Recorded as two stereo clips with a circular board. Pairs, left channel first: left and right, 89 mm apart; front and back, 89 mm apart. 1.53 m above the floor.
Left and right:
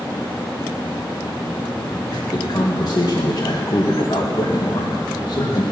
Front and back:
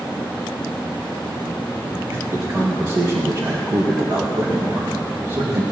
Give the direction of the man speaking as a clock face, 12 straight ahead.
8 o'clock.